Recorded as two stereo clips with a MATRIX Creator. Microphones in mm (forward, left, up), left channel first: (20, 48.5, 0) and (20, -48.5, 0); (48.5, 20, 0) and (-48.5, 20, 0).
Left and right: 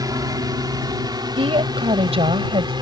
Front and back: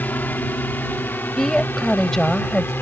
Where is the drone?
65° right.